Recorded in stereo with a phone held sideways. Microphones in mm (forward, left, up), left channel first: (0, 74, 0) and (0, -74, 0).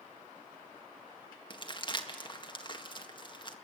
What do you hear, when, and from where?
1.5 s crumpling: 30° left (ahead or behind), 1.7 m